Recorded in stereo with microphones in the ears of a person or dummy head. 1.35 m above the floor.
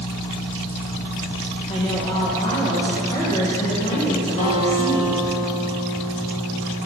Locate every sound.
1.7 s a woman speaking: 25° left (ahead or behind), 1.1 m
4.4 s a guitar: 50° left (ahead or behind), 2.0 m